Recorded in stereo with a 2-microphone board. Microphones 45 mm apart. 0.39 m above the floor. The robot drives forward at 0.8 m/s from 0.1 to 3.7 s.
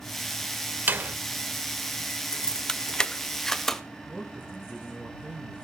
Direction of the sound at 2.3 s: 15° left (ahead or behind).